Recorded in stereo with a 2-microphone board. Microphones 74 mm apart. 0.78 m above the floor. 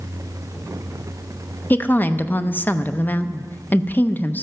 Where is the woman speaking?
25° left (ahead or behind), 0.5 m.